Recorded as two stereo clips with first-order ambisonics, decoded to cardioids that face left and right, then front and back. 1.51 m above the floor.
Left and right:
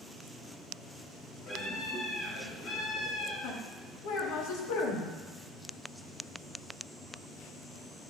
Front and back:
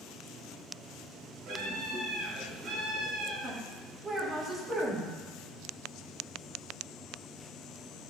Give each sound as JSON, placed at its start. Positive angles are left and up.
{"t": 1.5, "sound": "a scream", "azimuth_deg": 135, "distance_m": 4.0}
{"t": 3.4, "sound": "a woman speaking", "azimuth_deg": 105, "distance_m": 1.8}